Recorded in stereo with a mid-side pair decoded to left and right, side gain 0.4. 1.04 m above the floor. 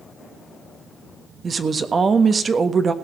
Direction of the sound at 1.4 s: 40° right.